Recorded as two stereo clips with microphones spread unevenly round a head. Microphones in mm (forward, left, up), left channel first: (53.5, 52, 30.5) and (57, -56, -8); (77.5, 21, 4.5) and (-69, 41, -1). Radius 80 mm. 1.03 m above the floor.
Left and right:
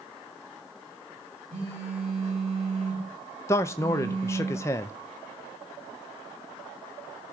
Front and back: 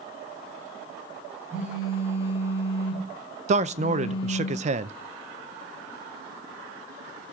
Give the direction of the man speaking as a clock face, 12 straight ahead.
6 o'clock.